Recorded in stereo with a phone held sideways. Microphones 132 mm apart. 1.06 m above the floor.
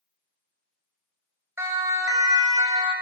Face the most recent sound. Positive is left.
turn(degrees=-30)  # may be behind; listen again after turning